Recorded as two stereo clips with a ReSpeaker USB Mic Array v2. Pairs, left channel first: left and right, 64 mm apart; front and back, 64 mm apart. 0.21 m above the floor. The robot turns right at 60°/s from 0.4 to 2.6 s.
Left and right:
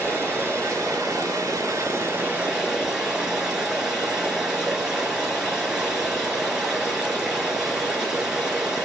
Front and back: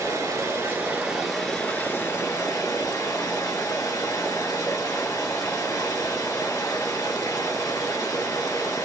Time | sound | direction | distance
0.0 | running water | 150° right | 3.5 m